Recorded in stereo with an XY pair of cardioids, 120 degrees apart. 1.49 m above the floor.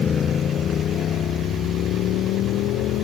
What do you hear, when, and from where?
0.0 s a motorcycle: 40° left; by 3.0 s 75° left